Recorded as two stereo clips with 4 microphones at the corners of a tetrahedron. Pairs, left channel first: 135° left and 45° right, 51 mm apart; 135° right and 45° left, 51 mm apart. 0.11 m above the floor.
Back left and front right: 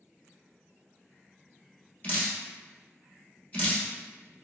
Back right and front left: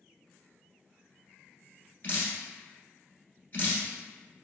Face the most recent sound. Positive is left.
turn(degrees=180)